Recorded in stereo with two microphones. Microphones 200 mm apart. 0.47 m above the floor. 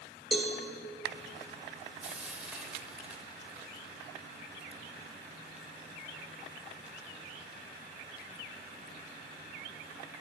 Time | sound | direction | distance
0.3 | a cowbell | centre (ahead or behind) | 0.8 m
2.0 | frying | 5° right (ahead or behind) | 0.7 m